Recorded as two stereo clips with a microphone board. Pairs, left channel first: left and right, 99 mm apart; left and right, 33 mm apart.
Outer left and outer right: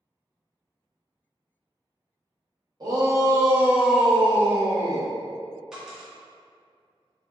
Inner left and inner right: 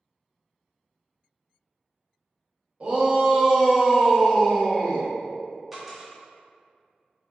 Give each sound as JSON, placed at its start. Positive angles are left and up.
{"t": 2.8, "sound": "a shout", "side_deg": -40, "distance_m": 0.9}
{"t": 5.7, "sound": "a dropped coin", "side_deg": -5, "distance_m": 0.8}